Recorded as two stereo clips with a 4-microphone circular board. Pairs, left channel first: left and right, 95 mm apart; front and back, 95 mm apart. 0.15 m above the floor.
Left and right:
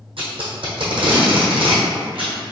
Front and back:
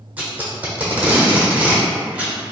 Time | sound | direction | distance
0.2 | tape being pulled | 105° right | 1.3 m